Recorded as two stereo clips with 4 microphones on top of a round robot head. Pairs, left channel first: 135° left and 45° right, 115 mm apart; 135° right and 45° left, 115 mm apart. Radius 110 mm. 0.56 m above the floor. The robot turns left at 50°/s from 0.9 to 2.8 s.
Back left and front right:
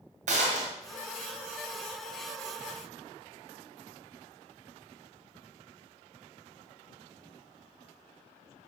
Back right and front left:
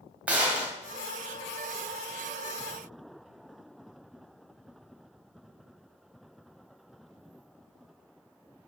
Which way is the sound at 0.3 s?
30° right.